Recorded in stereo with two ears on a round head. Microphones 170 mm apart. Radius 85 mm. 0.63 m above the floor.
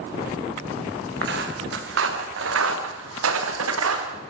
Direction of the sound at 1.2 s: 60° right (ahead or behind).